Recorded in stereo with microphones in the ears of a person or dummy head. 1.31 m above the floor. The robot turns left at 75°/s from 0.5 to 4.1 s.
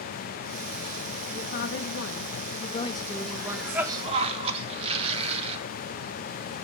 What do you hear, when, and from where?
1.4 s a woman speaking: 140° left, 1.7 m; by 3.9 s 45° right, 1.7 m
3.3 s a cough: 20° left, 2.5 m; by 5.6 s 40° right, 2.5 m